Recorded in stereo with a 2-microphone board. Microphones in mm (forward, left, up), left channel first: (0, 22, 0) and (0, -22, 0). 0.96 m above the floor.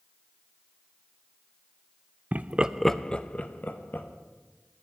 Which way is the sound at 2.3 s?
40° right (ahead or behind).